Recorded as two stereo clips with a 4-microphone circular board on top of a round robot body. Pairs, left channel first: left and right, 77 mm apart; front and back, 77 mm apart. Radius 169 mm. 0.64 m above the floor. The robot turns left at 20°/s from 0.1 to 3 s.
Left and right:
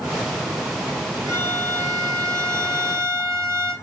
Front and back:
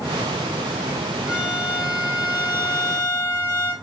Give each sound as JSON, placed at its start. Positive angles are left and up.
{"t": 1.3, "sound": "a violin", "azimuth_deg": -105, "distance_m": 5.0}